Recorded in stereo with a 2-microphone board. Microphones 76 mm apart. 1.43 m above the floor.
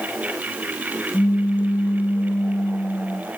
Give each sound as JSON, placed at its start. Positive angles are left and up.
{"t": 1.1, "sound": "a pop", "side_deg": 20, "distance_m": 3.0}